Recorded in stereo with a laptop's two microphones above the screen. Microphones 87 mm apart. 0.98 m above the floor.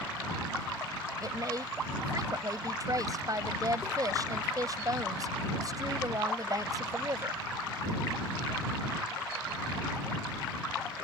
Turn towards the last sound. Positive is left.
turn(degrees=-45)  # may be behind; listen again after turning